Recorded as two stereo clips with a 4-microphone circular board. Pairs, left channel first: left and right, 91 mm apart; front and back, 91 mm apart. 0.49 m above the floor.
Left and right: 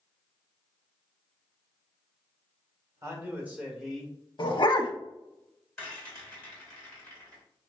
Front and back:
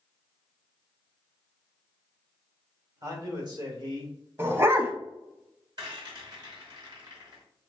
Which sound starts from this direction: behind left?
A dog barking, at 4.4 s.